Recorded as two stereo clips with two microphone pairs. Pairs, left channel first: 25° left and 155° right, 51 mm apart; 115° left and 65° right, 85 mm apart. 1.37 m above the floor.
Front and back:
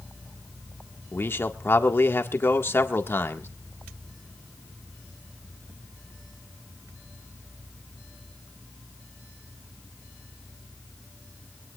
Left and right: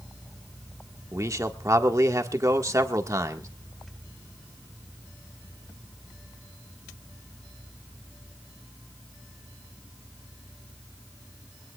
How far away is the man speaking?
About 1.6 m.